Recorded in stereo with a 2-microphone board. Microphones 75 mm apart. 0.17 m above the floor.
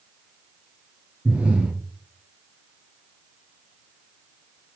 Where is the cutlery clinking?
No cutlery clinking in this recording.